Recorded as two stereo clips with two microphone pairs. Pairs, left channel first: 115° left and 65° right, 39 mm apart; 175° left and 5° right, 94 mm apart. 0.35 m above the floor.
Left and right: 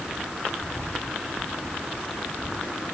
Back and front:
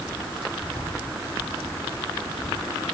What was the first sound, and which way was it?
Only background noise.